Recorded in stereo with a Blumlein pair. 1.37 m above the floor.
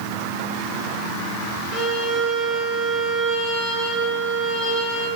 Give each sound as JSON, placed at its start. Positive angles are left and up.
{"t": 1.7, "sound": "a violin", "azimuth_deg": -15, "distance_m": 5.0}